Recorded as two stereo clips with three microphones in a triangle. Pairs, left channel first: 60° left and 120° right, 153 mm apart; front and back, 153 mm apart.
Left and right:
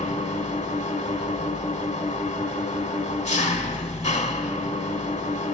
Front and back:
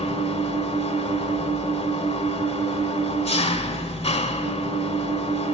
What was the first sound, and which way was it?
An engine running, 35° left.